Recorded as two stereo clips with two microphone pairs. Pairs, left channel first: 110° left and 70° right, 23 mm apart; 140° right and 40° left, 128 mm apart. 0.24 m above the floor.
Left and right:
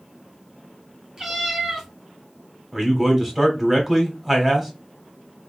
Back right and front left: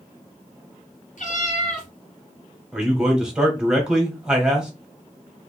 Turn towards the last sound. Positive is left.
turn(degrees=-30)